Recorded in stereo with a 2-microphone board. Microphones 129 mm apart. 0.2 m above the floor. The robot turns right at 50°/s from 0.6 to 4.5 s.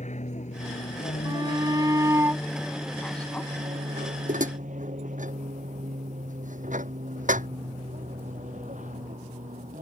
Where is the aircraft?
65° left (ahead or behind); by 9.8 s 80° right.